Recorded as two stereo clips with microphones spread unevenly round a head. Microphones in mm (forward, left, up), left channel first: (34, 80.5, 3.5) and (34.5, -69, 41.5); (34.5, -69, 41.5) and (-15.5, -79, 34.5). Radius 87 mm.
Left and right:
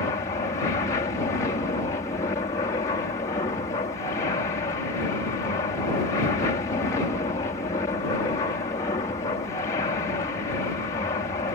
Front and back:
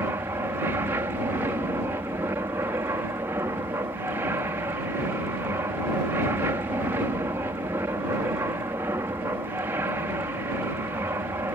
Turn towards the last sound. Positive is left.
turn(degrees=150)